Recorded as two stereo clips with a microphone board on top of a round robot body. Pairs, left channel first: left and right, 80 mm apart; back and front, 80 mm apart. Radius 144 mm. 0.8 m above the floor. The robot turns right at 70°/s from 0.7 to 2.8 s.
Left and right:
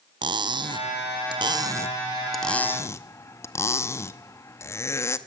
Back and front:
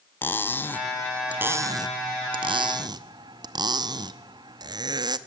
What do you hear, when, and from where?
0.2 s cutlery clinking: 115° right, 0.8 m; by 5.2 s 35° left, 0.8 m